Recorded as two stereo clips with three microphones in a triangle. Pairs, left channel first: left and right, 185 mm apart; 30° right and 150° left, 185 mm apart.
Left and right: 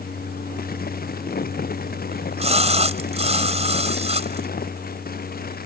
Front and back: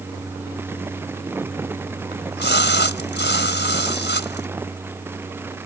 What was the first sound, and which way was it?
A splash, 35° right.